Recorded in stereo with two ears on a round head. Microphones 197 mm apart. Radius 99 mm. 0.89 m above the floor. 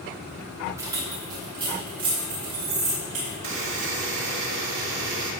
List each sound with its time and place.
0.8 s keys jangling: 15° right (ahead or behind), 3 m; by 3.3 s 35° right (ahead or behind), 5.5 m
3.4 s a buzzer: 60° right (ahead or behind), 1.9 m